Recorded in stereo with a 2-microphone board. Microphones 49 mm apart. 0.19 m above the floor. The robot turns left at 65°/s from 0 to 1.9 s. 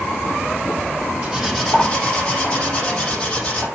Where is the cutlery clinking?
155° right, 4.5 m; by 3.7 s 165° left, 4.5 m.